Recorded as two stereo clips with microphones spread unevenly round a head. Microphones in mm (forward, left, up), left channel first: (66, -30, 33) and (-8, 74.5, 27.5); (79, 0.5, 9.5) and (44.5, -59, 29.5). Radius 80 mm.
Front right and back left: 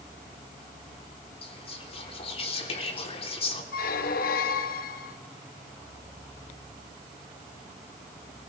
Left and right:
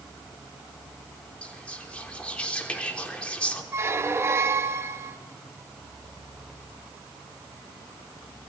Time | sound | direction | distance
1.4 | whispering | 15° right | 3 m
3.7 | a squeak | 65° right | 1.0 m